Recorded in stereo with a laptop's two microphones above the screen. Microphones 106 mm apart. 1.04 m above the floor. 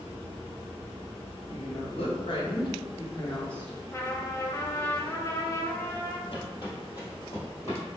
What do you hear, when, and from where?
1.5 s a woman speaking: 65° left (ahead or behind), 1.5 m; by 3.8 s 5° left (ahead or behind), 0.9 m
3.9 s a trumpet: 25° left (ahead or behind), 0.6 m
6.3 s footsteps: 50° left (ahead or behind), 1.5 m; by 7.8 s 20° left (ahead or behind), 2.5 m